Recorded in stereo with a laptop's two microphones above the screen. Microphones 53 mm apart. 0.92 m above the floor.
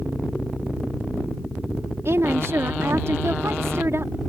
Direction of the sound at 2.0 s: 60° right (ahead or behind).